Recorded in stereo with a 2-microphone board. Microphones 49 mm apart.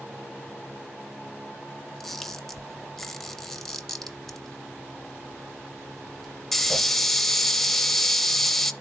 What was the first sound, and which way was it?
A camera shutter, 5° left (ahead or behind).